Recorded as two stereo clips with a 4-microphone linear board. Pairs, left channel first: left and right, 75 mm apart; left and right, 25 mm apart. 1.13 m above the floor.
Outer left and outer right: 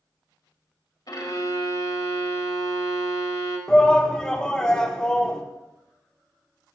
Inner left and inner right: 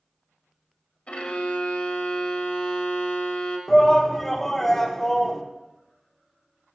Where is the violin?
60° left (ahead or behind), 1.5 m.